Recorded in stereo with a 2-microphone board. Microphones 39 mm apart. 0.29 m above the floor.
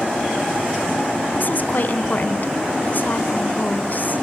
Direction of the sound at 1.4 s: 50° left (ahead or behind).